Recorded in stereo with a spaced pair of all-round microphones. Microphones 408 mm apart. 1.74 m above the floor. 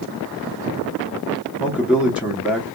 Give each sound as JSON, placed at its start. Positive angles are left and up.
{"t": 1.6, "sound": "a man speaking", "side_deg": 0, "distance_m": 1.0}